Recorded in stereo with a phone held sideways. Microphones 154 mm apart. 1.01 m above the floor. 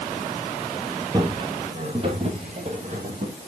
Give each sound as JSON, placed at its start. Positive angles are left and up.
{"t": 1.1, "sound": "footsteps", "side_deg": -25, "distance_m": 1.4}